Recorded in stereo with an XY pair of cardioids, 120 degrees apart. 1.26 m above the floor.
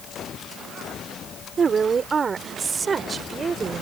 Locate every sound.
1.6 s a woman speaking: 35° right; by 3.8 s 30° right